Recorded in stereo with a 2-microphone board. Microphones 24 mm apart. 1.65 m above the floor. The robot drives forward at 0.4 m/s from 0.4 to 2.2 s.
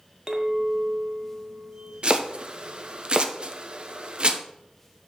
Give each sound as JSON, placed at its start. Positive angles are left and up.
{"t": 0.3, "sound": "a clink", "side_deg": -35, "distance_m": 1.1}
{"t": 2.0, "sound": "chopping", "side_deg": -50, "distance_m": 0.7}